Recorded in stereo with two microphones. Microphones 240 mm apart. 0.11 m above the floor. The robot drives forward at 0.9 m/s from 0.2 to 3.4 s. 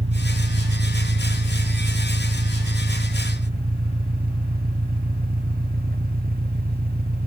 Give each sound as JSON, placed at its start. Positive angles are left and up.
{"t": 0.0, "sound": "an engine running", "side_deg": -55}